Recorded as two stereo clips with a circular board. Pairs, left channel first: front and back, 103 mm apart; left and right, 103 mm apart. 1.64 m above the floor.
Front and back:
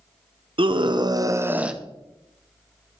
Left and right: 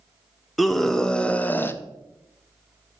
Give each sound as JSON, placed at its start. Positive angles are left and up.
{"t": 0.6, "sound": "a scream", "azimuth_deg": 180, "distance_m": 0.9}